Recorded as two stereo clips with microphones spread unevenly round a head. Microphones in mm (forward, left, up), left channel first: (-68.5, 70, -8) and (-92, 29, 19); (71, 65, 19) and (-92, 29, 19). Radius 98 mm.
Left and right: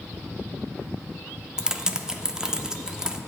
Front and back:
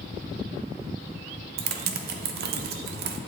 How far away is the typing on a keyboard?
About 0.6 m.